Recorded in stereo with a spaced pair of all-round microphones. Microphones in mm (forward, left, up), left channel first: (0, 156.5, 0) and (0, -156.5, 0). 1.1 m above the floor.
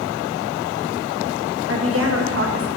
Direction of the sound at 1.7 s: 45° right (ahead or behind).